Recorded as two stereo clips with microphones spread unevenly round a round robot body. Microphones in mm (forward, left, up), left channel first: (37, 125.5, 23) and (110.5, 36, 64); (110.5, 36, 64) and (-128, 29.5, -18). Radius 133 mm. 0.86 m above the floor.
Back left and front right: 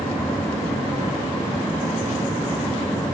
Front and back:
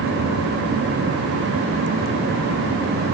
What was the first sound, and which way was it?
Only background noise.